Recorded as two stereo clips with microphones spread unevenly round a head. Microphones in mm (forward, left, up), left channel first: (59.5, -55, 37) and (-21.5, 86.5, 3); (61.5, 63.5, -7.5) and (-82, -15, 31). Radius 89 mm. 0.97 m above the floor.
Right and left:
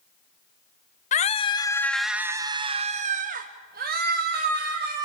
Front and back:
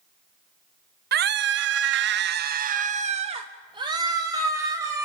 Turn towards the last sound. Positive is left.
turn(degrees=130)